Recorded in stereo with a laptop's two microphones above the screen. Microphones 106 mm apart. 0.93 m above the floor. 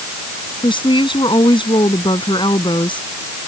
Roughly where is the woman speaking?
Left.